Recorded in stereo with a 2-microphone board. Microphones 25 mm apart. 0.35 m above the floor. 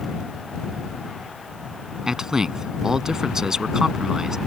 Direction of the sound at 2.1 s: 20° right (ahead or behind).